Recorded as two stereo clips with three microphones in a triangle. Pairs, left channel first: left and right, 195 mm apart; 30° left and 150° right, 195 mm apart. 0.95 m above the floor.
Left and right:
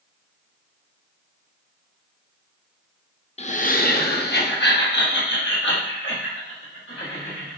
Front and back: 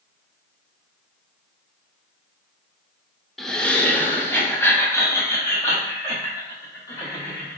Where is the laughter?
120° left, 0.5 m; by 7.6 s 105° left, 2.5 m.